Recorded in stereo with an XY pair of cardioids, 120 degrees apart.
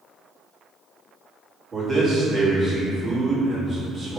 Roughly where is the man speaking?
Ahead right.